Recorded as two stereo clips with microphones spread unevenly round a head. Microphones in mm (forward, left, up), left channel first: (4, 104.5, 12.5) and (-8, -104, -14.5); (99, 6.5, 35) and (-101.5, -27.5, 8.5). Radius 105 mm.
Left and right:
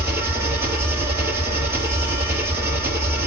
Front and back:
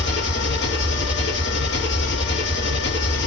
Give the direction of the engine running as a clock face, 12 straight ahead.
12 o'clock.